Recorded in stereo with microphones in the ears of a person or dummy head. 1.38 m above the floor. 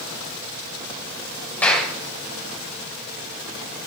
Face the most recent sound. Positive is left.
turn(degrees=10)  # may be behind; listen again after turning